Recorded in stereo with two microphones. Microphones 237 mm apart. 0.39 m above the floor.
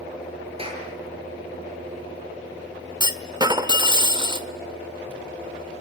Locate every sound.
0.6 s a clap: 25° right (ahead or behind), 7 m
3.0 s a clunk: 20° right (ahead or behind), 1.3 m